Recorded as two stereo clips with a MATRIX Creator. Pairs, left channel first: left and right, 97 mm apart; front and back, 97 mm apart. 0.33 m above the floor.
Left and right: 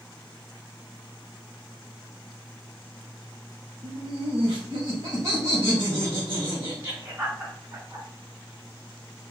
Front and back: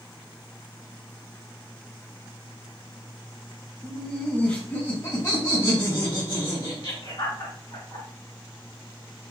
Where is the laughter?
80° right, 1.2 m; by 8.1 s 15° right, 2.5 m.